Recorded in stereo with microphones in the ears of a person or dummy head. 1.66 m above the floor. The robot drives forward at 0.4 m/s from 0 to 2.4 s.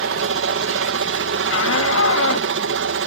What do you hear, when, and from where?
0.0 s a helicopter: 60° right (ahead or behind)
1.5 s a shout: 80° left; by 2.5 s 85° left